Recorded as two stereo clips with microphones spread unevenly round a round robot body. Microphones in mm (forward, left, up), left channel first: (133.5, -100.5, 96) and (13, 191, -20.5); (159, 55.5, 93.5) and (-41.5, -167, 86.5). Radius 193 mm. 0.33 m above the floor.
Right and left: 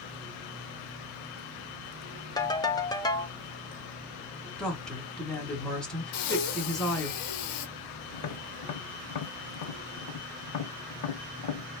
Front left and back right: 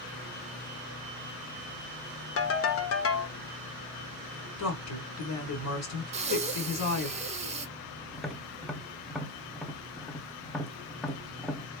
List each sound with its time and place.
2.4 s a ringtone: 30° left, 0.7 m
4.6 s a woman speaking: 35° left, 1.8 m
6.1 s breathing: 60° right, 0.7 m
8.1 s tapping: 40° right, 0.7 m